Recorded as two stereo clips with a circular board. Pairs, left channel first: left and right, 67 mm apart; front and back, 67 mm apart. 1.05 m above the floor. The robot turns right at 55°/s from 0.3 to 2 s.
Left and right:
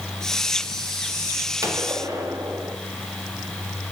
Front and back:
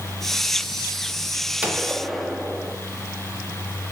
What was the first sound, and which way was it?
A gunshot, 115° right.